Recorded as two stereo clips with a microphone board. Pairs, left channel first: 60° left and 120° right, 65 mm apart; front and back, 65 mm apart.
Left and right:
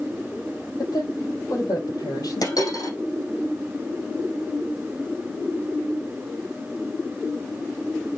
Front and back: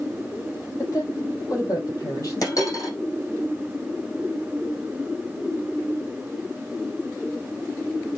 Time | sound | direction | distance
0.8 | a woman speaking | 40° left | 7.5 m
2.4 | a dropped coin | 40° left | 6.5 m